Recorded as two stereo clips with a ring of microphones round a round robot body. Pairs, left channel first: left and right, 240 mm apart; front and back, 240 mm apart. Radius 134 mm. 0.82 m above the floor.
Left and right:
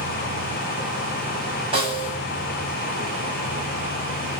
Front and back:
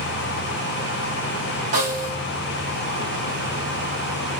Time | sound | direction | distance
1.7 | a snare drum | 160° right | 6.5 m